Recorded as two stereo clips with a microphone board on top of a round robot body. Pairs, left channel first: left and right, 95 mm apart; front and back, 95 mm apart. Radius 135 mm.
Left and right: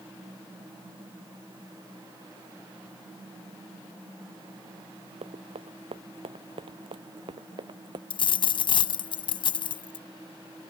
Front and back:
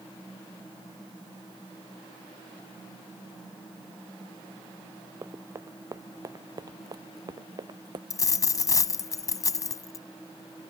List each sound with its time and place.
5.2 s running footsteps: 115° right; by 8.0 s 135° right
8.1 s a dropped coin: 55° left